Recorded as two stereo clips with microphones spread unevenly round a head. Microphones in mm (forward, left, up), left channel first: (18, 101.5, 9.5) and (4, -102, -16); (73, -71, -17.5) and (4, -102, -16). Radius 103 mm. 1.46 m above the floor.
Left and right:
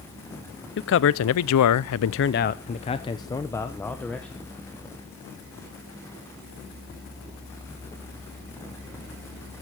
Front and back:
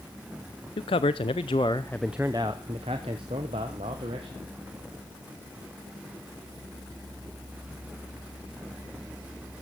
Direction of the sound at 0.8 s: 50° left.